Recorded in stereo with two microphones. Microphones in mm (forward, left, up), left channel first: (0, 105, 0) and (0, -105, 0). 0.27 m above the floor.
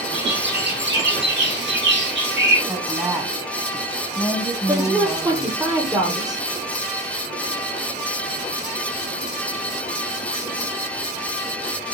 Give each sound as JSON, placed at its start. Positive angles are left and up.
{"t": 0.1, "sound": "a bird", "side_deg": -60, "distance_m": 6.0}
{"t": 2.7, "sound": "a woman speaking", "side_deg": -5, "distance_m": 1.7}
{"t": 4.7, "sound": "a woman speaking", "side_deg": -20, "distance_m": 7.0}